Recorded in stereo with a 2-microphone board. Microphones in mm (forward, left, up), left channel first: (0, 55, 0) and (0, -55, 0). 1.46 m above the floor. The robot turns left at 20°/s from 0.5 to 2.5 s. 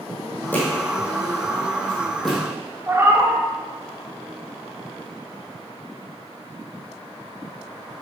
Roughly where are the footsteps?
Centre.